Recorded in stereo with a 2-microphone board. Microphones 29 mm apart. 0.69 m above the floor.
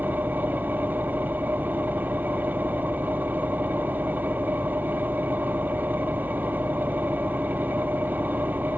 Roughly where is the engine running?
Right.